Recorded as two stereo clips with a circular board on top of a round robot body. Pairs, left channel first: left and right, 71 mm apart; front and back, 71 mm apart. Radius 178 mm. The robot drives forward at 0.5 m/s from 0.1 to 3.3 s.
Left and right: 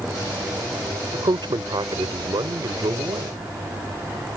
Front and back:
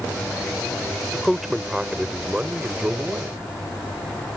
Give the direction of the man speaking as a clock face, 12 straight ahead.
3 o'clock.